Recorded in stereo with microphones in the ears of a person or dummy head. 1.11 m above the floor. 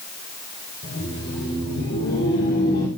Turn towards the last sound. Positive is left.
turn(degrees=50)  # may be behind; listen again after turning